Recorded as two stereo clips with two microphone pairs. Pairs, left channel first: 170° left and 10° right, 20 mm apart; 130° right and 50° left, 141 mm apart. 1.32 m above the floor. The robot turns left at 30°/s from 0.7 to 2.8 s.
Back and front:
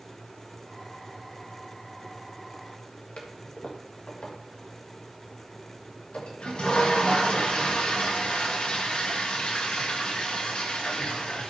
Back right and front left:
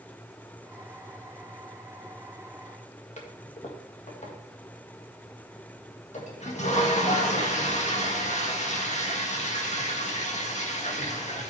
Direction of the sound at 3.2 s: 165° right.